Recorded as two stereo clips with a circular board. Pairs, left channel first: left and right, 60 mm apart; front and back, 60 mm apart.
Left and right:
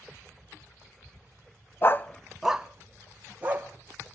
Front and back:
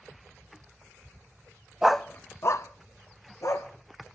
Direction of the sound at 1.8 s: 105° left.